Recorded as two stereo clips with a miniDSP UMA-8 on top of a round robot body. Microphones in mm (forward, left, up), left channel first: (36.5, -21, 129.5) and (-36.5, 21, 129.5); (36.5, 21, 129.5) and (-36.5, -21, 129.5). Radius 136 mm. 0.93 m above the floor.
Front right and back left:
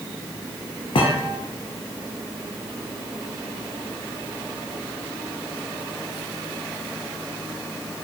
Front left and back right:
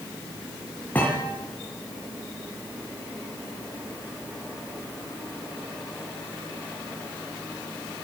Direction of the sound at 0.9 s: 40° right.